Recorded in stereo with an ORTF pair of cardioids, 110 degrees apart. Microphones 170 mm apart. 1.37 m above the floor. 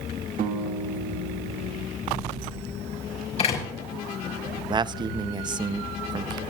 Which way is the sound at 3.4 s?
40° left.